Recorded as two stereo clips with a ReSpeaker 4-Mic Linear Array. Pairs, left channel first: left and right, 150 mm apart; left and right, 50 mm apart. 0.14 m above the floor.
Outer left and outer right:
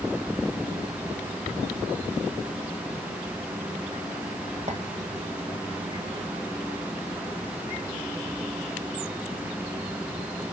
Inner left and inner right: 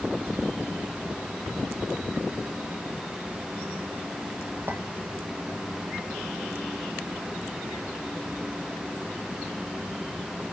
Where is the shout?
I don't hear a shout.